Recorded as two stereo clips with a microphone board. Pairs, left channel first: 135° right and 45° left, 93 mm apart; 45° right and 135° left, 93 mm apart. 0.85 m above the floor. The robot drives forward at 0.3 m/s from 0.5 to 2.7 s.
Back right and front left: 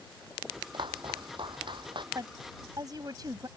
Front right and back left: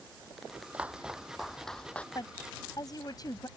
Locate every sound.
0.7 s footsteps: 65° left; by 2.0 s 30° left
2.1 s a woman speaking: straight ahead